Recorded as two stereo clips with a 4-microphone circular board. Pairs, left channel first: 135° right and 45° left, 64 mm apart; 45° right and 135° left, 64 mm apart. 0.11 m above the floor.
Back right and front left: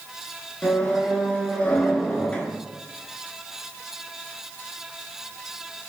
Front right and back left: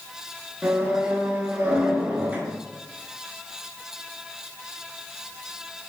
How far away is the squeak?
About 0.5 m.